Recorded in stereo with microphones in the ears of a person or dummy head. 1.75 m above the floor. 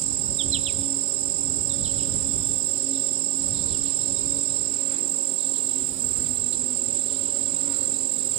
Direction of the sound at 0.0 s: 25° right (ahead or behind).